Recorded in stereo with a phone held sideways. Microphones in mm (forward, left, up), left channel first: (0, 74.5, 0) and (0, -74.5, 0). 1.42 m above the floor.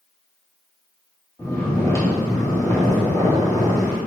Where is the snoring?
20° left (ahead or behind), 1.3 m.